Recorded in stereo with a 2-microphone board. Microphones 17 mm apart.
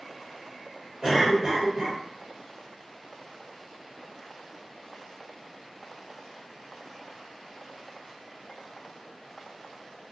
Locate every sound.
1.0 s a cough: 45° right (ahead or behind), 1.4 m